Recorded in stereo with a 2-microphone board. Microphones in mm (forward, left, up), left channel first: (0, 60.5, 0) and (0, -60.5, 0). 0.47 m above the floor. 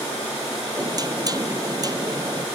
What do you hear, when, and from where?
0.8 s knocking: 35° right (ahead or behind)